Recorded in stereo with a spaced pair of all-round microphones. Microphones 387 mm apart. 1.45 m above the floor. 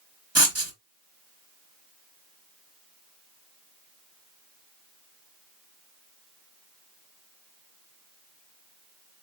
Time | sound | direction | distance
0.3 | writing | 40° right (ahead or behind) | 1.0 m